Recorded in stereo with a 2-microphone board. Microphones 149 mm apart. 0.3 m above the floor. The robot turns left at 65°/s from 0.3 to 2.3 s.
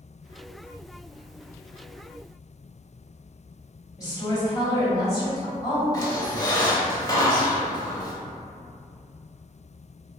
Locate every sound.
4.0 s a woman speaking: 25° left (ahead or behind), 1.8 m
5.9 s a squeak: 30° left (ahead or behind), 0.6 m